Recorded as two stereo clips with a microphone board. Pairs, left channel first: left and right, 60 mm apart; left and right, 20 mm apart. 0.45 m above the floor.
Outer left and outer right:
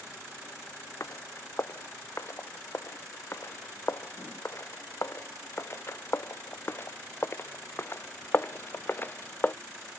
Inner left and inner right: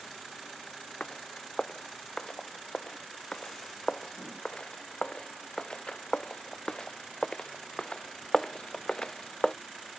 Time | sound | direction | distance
1.0 | footsteps | 55° left (ahead or behind) | ?